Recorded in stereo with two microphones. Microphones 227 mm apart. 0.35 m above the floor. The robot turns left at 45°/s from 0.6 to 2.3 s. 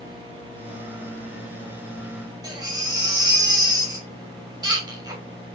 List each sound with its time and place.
2.4 s a baby crying: 20° right (ahead or behind), 0.7 m